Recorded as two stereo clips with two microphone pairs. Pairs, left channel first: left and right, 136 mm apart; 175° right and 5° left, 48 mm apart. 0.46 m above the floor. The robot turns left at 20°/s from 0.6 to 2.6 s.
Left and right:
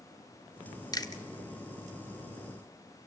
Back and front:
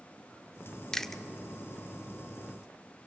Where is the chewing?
110° left, 0.8 m; by 1.2 s 100° left, 0.8 m.